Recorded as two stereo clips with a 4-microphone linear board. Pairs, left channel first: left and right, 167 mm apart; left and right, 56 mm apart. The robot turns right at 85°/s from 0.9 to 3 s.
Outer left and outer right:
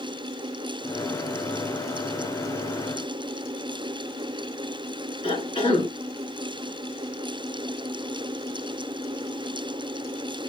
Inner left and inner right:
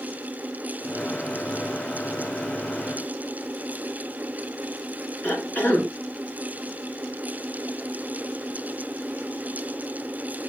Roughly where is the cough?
Left.